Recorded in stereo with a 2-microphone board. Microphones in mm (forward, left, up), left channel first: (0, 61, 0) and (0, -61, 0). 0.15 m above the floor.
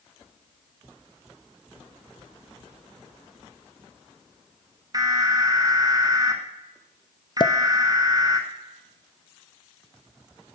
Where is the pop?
40° left (ahead or behind), 0.5 m.